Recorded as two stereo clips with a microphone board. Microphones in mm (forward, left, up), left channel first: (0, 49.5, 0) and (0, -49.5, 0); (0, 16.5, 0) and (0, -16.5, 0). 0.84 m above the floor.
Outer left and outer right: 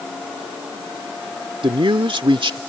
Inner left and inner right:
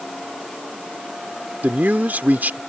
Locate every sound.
1.6 s a man speaking: 60° right (ahead or behind)